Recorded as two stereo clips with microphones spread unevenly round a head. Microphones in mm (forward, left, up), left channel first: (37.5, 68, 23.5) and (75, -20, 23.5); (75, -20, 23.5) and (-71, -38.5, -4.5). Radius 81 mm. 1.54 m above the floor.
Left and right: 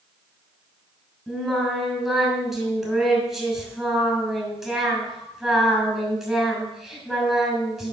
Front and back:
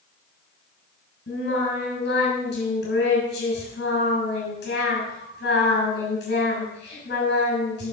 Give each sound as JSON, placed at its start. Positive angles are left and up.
{"t": 1.3, "sound": "singing", "azimuth_deg": 25, "distance_m": 6.5}